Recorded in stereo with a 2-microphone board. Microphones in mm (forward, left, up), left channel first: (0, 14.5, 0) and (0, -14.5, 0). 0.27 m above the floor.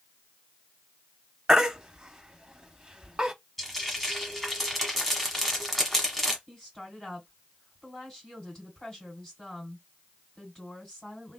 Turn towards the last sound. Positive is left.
turn(degrees=25)  # may be behind; listen again after turning